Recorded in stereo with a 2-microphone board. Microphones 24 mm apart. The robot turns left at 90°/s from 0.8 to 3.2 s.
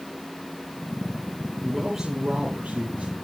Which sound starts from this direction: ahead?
A man speaking, at 1.6 s.